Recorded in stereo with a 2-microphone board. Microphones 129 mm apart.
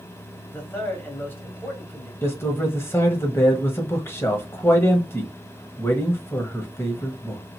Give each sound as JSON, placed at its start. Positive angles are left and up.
{"t": 0.5, "sound": "a man speaking", "side_deg": 15, "distance_m": 1.4}
{"t": 2.2, "sound": "a man speaking", "side_deg": 20, "distance_m": 0.9}